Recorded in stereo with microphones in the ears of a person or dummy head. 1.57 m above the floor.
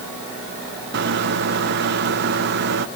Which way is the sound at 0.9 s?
60° right (ahead or behind).